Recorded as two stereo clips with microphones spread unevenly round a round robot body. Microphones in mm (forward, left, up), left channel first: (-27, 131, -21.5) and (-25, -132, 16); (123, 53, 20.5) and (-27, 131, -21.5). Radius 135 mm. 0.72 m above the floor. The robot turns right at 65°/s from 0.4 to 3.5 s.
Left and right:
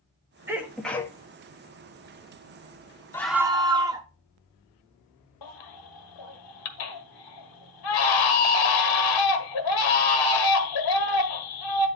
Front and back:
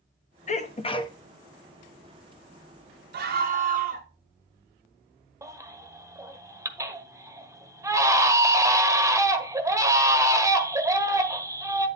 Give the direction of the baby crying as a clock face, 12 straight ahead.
9 o'clock.